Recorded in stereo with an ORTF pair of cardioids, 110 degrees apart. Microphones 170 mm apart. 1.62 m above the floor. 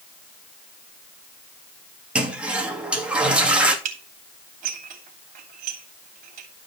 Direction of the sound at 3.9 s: 55° right.